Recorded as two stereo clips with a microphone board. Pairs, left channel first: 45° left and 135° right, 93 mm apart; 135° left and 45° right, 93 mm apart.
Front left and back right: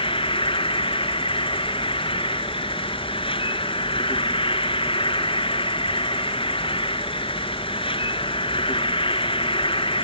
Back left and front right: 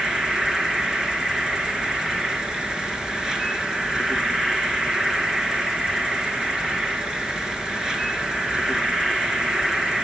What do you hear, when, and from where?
0.0 s an insect: 40° left, 2.5 m